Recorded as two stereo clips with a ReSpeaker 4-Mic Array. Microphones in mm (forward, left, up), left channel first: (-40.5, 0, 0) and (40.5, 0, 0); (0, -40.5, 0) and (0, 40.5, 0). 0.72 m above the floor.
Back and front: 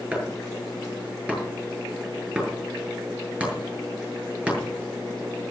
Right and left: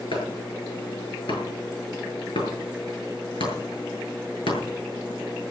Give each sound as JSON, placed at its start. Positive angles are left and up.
{"t": 0.1, "sound": "chopping", "azimuth_deg": -75, "distance_m": 8.0}